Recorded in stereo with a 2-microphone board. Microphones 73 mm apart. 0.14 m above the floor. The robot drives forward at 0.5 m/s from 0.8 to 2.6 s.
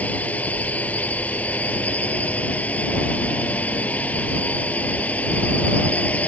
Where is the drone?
20° left (ahead or behind).